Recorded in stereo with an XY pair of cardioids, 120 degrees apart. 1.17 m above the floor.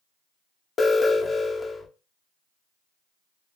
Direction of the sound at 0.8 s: 35° left.